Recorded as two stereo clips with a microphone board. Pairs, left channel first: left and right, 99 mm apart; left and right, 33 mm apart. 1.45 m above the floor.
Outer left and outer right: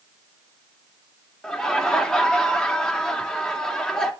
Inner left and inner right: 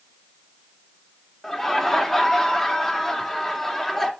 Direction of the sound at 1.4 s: 5° left (ahead or behind).